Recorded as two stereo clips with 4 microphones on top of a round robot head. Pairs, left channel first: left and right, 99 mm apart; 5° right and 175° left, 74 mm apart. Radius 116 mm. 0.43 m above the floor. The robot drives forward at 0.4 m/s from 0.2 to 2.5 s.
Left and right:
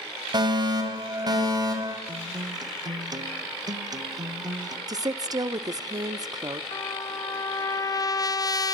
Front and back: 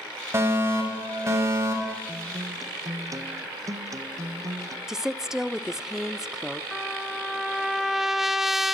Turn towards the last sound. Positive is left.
turn(degrees=90)